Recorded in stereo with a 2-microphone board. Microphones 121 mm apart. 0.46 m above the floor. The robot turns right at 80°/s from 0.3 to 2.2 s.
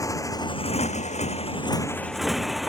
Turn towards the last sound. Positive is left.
turn(degrees=0)  # may be behind; listen again after turning